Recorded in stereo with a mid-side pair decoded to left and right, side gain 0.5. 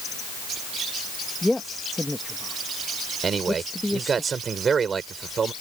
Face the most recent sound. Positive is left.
turn(degrees=-40)